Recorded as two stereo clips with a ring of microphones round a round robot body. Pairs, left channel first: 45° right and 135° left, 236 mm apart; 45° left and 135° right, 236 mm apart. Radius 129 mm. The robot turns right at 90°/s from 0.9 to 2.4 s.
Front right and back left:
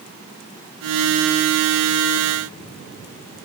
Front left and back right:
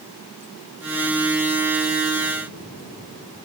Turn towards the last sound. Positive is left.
No sound to turn to.